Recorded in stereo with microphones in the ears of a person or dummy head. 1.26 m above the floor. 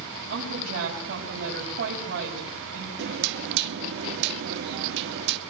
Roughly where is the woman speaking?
Right.